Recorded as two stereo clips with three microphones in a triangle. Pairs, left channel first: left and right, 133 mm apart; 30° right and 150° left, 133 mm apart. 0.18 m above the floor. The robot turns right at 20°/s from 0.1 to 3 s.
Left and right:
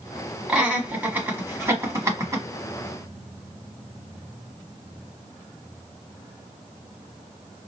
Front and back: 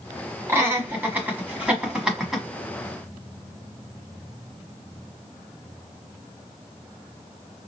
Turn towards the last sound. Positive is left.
turn(degrees=-110)